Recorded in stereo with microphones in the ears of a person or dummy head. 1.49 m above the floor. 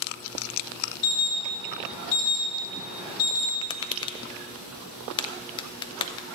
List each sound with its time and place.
1.0 s an alarm: 60° left (ahead or behind), 4 m
3.6 s tapping: 30° left (ahead or behind), 0.5 m